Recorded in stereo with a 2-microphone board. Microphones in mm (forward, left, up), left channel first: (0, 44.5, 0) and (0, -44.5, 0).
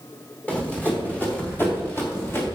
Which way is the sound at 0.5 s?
15° left (ahead or behind).